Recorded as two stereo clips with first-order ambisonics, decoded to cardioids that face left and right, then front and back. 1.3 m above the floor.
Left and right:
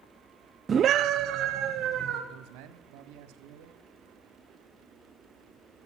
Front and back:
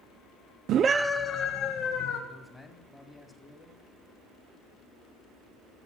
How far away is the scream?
About 0.6 m.